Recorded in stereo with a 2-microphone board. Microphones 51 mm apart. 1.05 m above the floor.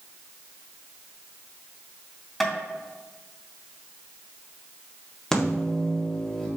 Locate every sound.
2.4 s tapping: 5° left (ahead or behind), 2.5 m
5.3 s a microwave: 10° left (ahead or behind), 1.8 m